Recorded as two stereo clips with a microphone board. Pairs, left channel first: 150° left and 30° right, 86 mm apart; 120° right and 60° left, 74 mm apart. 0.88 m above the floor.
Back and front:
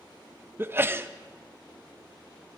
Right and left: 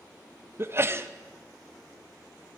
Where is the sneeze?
20° left, 0.5 m.